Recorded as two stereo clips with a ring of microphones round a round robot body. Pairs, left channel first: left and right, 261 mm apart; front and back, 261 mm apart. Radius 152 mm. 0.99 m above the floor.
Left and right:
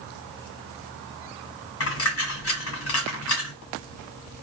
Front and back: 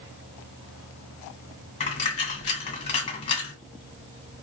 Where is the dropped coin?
60° left, 1.6 m.